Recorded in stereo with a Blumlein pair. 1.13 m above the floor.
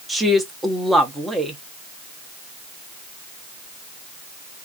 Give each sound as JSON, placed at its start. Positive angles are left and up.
{"t": 0.1, "sound": "a woman speaking", "azimuth_deg": -5, "distance_m": 0.9}